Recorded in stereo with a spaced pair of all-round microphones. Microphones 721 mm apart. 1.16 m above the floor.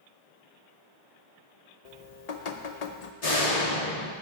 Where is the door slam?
55° left (ahead or behind), 1.6 m.